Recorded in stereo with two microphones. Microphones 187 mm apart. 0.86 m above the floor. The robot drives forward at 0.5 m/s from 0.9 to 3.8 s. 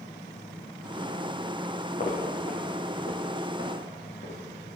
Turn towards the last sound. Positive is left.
turn(degrees=65)  # may be behind; listen again after turning